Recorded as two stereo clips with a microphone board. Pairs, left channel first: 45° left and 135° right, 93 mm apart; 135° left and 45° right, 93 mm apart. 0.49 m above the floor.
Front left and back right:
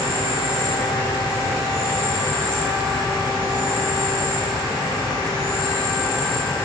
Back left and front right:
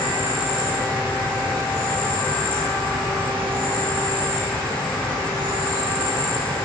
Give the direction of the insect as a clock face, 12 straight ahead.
10 o'clock.